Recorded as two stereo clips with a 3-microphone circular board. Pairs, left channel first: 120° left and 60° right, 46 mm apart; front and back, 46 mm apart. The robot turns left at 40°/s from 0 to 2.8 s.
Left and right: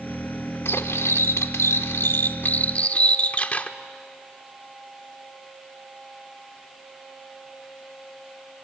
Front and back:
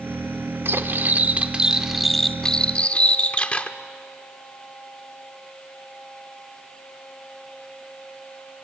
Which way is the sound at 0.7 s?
150° left.